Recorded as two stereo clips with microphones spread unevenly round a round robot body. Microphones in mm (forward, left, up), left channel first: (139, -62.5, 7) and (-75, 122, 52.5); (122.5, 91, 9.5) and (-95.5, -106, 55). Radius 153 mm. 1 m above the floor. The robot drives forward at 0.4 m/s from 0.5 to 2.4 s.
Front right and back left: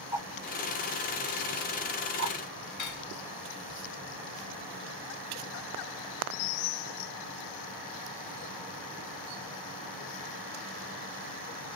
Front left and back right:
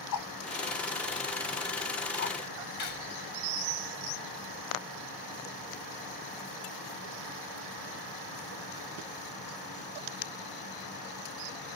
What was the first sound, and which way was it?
A whoosh, 55° left.